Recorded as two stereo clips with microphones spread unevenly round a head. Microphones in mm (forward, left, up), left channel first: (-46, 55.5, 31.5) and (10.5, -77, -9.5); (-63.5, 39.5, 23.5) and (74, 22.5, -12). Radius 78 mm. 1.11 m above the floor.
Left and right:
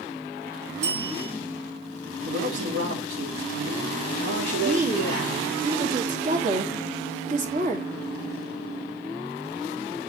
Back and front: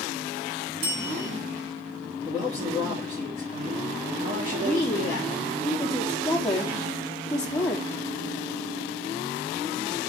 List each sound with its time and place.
0.8 s a bell: 15° right, 4 m
2.2 s a man speaking: 75° right, 3 m
4.6 s a woman speaking: 100° right, 2.5 m